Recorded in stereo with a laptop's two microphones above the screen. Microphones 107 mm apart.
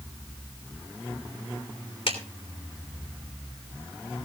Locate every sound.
2.1 s a clap: 65° left (ahead or behind), 3 m